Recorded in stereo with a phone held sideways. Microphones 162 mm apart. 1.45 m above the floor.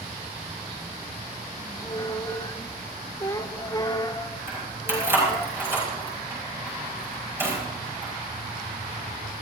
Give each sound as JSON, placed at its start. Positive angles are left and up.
{"t": 1.6, "sound": "a squeak", "side_deg": 25, "distance_m": 0.6}
{"t": 4.5, "sound": "keys jangling", "side_deg": -15, "distance_m": 5.5}